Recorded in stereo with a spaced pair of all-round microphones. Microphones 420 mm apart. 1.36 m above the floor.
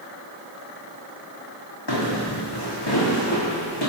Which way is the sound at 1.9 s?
70° left (ahead or behind).